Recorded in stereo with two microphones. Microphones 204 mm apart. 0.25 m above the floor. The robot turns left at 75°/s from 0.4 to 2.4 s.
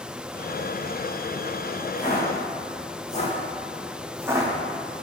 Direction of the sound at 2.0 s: 25° left (ahead or behind).